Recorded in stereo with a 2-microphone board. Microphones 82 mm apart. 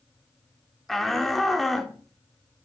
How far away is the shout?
About 0.8 m.